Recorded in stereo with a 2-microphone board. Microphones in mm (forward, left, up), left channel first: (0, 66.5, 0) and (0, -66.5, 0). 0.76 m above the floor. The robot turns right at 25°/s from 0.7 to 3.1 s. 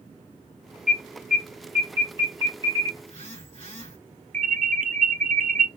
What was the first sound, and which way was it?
An alarm, 5° right (ahead or behind).